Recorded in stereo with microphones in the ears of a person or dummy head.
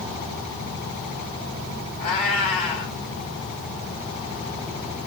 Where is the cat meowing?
30° left (ahead or behind), 2 m.